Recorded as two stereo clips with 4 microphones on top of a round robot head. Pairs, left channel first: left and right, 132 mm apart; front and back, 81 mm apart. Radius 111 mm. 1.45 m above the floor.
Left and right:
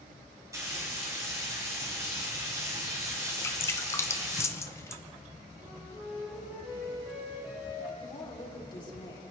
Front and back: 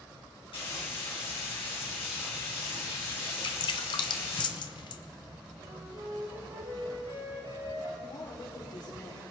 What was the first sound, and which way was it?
Frying, 25° right.